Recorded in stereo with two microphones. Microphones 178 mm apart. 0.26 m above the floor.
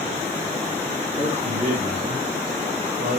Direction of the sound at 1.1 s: 20° right (ahead or behind).